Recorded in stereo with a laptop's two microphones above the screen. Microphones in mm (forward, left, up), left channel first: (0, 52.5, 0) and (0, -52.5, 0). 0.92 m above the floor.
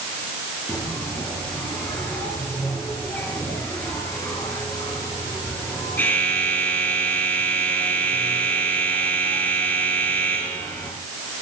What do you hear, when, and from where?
0.7 s a bell: 20° left (ahead or behind), 5 m